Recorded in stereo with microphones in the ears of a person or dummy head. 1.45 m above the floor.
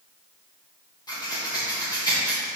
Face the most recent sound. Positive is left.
turn(degrees=20)  # may be behind; listen again after turning